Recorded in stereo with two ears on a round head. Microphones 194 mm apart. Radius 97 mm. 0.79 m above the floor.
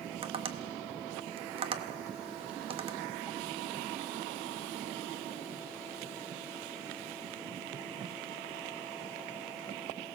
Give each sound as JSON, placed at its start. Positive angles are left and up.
{"t": 0.2, "sound": "tapping", "side_deg": -25, "distance_m": 1.0}